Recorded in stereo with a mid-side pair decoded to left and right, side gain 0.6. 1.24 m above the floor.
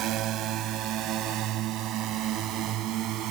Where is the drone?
60° right; by 3.3 s 65° right.